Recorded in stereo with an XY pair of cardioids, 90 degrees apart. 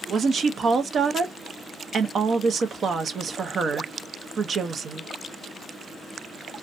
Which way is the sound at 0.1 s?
55° right.